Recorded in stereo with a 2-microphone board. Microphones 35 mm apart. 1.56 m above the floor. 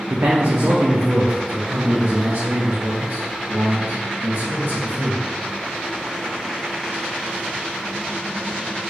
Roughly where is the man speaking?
Right.